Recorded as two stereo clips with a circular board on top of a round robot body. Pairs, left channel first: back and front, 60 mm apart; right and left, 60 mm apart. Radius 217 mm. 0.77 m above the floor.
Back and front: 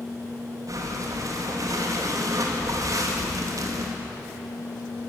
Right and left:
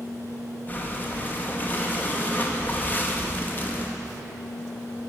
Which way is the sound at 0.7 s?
30° right.